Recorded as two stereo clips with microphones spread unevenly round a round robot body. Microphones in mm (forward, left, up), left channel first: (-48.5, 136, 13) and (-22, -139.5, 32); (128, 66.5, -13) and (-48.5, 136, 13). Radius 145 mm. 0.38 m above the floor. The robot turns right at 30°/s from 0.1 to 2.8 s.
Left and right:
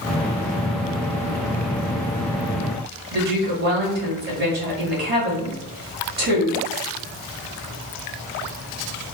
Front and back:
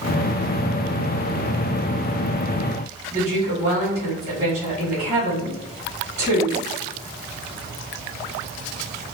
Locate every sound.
3.1 s a woman speaking: 135° right, 1.7 m